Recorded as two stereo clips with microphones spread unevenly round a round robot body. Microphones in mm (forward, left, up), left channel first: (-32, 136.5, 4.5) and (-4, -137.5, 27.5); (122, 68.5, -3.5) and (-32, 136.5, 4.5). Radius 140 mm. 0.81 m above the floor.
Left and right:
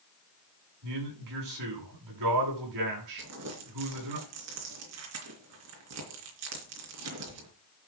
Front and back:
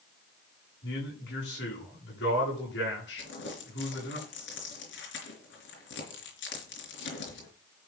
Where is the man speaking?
60° right, 9 m.